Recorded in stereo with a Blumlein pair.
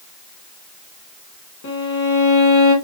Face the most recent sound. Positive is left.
turn(degrees=55)